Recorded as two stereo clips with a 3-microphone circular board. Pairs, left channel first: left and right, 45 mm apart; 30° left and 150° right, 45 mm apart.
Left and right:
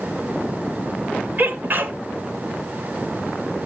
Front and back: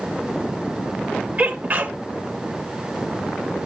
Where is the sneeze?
110° right, 1.6 m.